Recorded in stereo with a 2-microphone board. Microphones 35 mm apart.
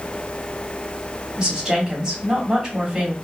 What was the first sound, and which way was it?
A woman speaking, 15° right (ahead or behind).